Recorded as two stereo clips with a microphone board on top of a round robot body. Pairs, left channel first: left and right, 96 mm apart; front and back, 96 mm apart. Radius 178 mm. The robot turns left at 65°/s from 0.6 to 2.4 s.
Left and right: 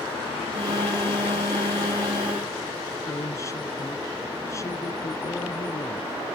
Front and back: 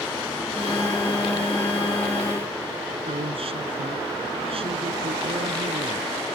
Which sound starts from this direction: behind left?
A woman speaking, at 3.1 s.